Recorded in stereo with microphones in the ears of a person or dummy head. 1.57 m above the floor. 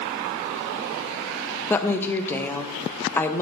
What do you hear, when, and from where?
1.7 s a woman speaking: 10° left (ahead or behind), 0.6 m